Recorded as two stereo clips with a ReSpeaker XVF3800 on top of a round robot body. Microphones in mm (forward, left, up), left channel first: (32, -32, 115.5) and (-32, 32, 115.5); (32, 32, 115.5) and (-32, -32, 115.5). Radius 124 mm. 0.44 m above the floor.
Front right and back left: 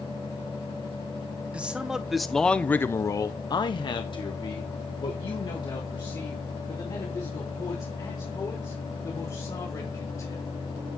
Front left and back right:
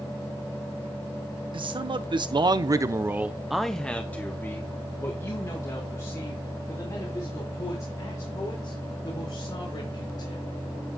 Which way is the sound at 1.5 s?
150° right.